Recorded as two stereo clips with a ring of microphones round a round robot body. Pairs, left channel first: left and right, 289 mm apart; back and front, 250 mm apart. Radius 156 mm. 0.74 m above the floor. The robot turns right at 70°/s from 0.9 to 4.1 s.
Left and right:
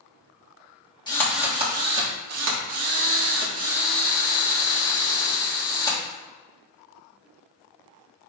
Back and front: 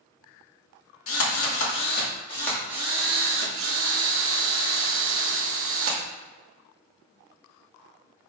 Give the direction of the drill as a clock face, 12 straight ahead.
7 o'clock.